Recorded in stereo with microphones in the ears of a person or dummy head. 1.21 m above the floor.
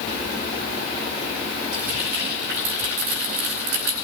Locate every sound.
1.7 s frying: 85° right, 4.5 m